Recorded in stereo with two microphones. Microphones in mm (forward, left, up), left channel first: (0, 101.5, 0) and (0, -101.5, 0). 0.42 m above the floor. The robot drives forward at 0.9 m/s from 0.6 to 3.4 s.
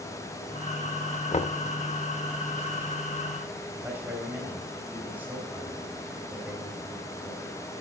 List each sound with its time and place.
1.3 s knocking: 30° left (ahead or behind), 0.5 m; by 1.6 s 35° left (ahead or behind), 0.5 m
3.7 s a man speaking: 10° right (ahead or behind), 2.5 m